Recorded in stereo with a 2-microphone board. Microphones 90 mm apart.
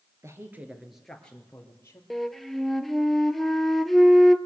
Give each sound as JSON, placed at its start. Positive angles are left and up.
{"t": 0.2, "sound": "a woman speaking", "side_deg": -35, "distance_m": 2.0}
{"t": 2.1, "sound": "a flute", "side_deg": 0, "distance_m": 0.7}